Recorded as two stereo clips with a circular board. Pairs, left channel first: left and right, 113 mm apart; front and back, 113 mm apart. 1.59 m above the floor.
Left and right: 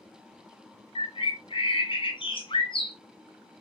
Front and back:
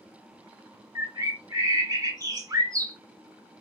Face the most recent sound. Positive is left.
turn(degrees=125)